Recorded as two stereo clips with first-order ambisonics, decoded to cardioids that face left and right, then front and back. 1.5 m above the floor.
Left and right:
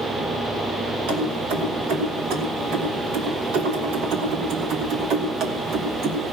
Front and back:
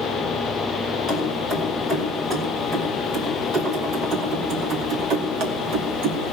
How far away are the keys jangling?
About 5 m.